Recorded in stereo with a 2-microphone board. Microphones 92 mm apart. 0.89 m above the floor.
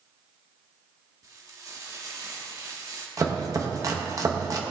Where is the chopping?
35° right (ahead or behind), 1.0 m.